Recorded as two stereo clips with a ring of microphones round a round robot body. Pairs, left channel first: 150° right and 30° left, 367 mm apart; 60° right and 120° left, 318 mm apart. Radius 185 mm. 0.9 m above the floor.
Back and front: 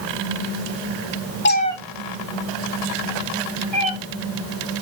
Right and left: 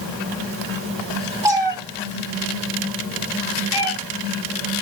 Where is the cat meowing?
170° right, 0.8 m; by 3.9 s 40° left, 1.9 m.